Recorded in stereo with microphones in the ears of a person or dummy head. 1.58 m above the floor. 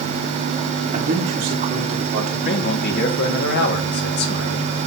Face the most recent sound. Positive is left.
turn(degrees=50)  # may be behind; listen again after turning